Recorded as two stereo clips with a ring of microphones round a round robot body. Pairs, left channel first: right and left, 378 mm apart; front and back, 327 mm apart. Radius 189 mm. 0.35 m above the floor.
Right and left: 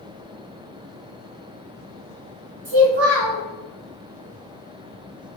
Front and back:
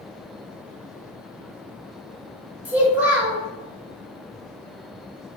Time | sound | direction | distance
2.6 | a child speaking | 95° left | 1.2 m